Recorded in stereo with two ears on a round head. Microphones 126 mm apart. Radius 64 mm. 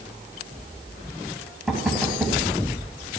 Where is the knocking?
5° right (ahead or behind), 2.5 m.